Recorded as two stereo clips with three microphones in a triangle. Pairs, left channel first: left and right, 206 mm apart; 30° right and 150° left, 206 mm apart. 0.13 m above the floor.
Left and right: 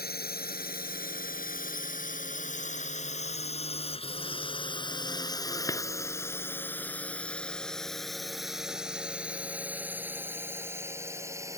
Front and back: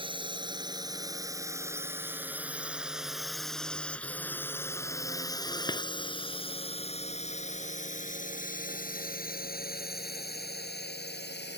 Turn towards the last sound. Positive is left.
turn(degrees=-15)